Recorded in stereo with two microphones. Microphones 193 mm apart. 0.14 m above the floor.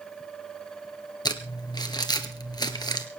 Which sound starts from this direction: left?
Crumpling, at 1.2 s.